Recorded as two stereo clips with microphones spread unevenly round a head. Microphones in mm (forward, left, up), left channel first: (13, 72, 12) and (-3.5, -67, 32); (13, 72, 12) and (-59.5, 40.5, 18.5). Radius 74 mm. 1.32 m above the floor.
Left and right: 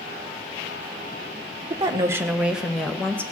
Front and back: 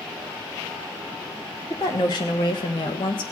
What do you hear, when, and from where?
1.7 s a woman speaking: 35° right, 1.2 m; by 3.2 s 5° left, 1.5 m